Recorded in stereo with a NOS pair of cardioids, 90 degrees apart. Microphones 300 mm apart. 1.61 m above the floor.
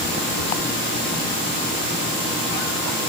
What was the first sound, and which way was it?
Only background noise.